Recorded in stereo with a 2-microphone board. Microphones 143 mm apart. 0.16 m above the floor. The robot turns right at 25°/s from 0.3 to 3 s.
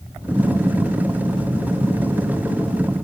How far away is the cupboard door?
I don't hear a cupboard door.